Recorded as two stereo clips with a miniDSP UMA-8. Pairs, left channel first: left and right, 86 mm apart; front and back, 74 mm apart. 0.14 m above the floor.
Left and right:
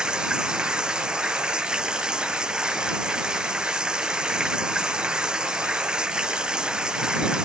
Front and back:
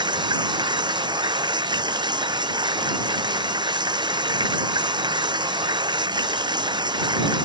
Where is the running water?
170° right.